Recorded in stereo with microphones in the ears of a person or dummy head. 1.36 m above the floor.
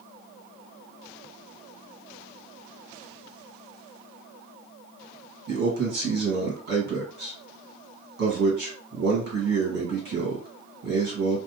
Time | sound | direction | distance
5.5 | a man speaking | 55° right (ahead or behind) | 1.8 m